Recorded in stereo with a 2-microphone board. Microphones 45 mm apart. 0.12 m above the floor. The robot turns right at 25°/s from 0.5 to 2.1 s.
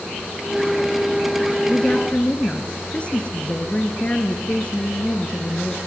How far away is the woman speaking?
About 2 m.